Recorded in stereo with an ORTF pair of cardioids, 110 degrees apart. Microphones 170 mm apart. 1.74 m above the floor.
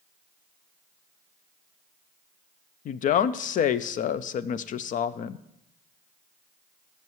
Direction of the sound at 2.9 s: 55° left.